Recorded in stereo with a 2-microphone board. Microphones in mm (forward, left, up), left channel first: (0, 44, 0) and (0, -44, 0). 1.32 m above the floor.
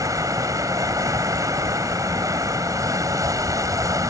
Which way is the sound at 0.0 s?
45° right (ahead or behind).